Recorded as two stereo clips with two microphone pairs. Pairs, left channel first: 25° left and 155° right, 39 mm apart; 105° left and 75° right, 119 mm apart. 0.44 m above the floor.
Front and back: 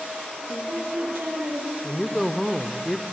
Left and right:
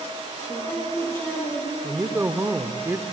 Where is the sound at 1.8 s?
45° right, 0.9 m.